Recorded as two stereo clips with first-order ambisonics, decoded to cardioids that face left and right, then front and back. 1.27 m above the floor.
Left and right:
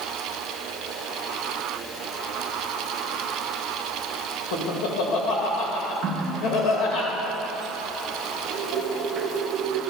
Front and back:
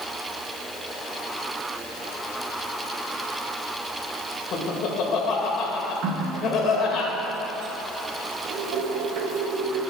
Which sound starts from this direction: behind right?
A running tap, at 6.0 s.